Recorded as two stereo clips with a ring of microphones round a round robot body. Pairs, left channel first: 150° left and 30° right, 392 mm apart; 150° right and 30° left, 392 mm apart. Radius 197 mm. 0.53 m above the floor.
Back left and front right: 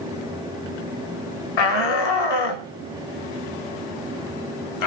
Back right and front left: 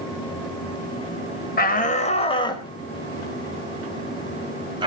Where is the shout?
145° left, 2.5 m; by 4.9 s 110° left, 3.5 m.